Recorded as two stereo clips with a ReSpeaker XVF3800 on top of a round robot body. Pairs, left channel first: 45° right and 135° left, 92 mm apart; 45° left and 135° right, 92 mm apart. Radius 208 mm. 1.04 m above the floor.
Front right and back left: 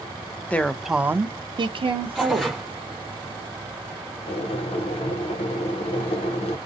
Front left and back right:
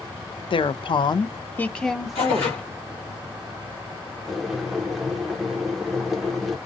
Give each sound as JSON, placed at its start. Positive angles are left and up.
{"t": 0.5, "sound": "a woman speaking", "azimuth_deg": 30, "distance_m": 0.6}
{"t": 2.1, "sound": "tearing paper", "azimuth_deg": 50, "distance_m": 0.6}
{"t": 4.3, "sound": "boiling", "azimuth_deg": -45, "distance_m": 0.5}